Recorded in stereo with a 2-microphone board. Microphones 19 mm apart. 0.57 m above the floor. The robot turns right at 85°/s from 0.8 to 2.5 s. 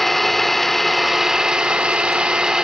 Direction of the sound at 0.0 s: 165° left.